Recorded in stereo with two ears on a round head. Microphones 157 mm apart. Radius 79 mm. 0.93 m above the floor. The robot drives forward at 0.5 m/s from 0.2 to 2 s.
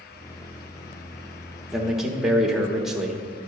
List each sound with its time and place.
1.7 s a man speaking: 5° right (ahead or behind), 0.8 m